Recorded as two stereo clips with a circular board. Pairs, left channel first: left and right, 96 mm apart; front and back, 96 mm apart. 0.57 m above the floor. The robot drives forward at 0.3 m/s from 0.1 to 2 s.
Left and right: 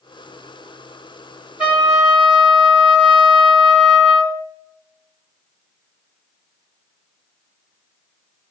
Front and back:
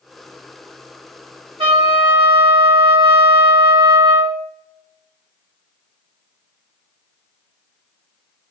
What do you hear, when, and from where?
1.6 s a trumpet: 165° right, 1.7 m